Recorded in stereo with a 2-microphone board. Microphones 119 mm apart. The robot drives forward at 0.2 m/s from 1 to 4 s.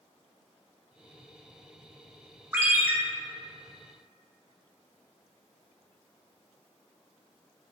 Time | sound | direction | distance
2.5 | a ringtone | 20° right (ahead or behind) | 0.6 m